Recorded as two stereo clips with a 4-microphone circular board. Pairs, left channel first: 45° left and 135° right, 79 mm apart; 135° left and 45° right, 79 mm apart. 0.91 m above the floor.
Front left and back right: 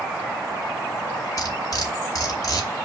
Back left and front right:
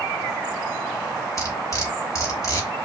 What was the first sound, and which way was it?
Cutlery clinking, 85° left.